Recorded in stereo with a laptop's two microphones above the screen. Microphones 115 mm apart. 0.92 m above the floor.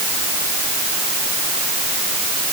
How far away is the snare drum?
I don't hear a snare drum.